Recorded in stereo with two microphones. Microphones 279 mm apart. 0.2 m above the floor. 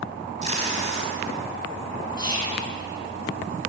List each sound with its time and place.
0.4 s tape being pulled: 25° right (ahead or behind), 1.6 m
2.2 s whispering: 15° left (ahead or behind), 1.8 m